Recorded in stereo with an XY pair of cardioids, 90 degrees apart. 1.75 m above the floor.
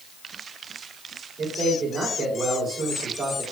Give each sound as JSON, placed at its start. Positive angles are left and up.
{"t": 1.4, "sound": "a man speaking", "azimuth_deg": -55, "distance_m": 4.0}